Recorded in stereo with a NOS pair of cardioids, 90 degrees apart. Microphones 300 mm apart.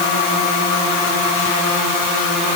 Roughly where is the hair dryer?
No hair dryer in this recording.